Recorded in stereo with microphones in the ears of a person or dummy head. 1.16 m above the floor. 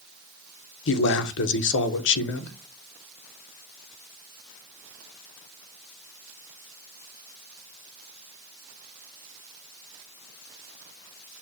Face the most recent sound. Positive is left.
turn(degrees=65)  # may be behind; listen again after turning